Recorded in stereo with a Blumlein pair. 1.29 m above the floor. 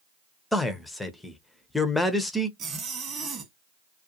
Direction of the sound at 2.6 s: 25° right.